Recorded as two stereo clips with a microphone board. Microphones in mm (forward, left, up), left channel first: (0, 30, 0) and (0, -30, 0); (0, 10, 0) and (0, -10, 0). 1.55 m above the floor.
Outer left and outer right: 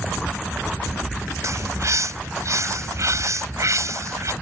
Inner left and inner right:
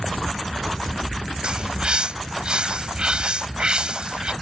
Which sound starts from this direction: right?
A bird, at 1.4 s.